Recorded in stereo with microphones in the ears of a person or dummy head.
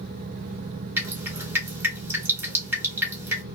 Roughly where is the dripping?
Centre.